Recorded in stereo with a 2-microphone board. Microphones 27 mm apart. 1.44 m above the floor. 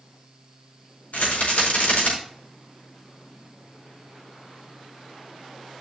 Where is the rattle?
80° left, 4.5 m.